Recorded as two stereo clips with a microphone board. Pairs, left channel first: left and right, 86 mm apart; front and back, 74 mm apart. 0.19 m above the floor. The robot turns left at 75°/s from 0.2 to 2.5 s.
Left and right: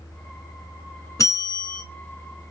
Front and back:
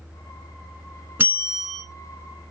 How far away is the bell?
About 1.2 m.